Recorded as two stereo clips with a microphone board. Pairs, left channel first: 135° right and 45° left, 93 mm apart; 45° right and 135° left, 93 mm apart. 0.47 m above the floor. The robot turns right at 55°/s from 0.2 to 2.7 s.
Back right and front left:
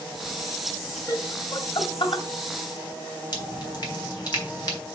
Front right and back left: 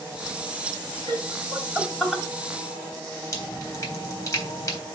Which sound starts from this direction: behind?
Laughter, at 1.1 s.